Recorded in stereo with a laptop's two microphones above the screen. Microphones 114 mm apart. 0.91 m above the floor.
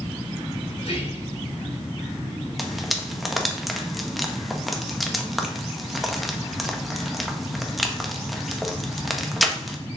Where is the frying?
Centre (ahead or behind), 1.1 m.